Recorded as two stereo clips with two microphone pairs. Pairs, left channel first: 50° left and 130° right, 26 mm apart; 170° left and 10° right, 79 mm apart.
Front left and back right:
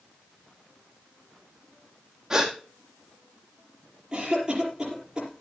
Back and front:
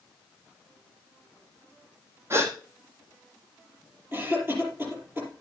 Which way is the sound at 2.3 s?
65° right.